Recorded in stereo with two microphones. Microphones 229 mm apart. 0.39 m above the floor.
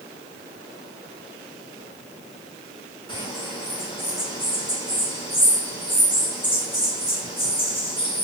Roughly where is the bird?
Left.